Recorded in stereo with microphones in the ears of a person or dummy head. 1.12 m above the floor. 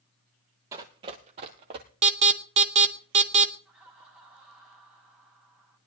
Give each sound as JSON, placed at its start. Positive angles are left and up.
{"t": 0.7, "sound": "running footsteps", "side_deg": -20, "distance_m": 1.2}
{"t": 2.0, "sound": "an alarm", "side_deg": -35, "distance_m": 0.9}
{"t": 3.6, "sound": "laughter", "side_deg": -10, "distance_m": 9.5}